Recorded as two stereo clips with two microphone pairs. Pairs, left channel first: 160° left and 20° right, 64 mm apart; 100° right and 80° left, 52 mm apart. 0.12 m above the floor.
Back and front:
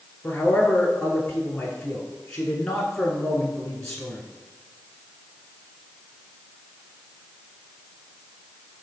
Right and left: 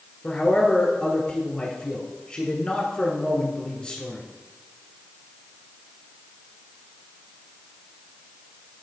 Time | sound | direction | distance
0.2 | a man speaking | 135° right | 1.2 m